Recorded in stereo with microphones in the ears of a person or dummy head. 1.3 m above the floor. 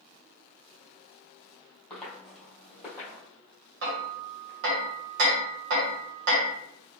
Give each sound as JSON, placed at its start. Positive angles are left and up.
{"t": 1.9, "sound": "footsteps", "side_deg": 10, "distance_m": 1.8}
{"t": 3.8, "sound": "hammering", "side_deg": -50, "distance_m": 0.8}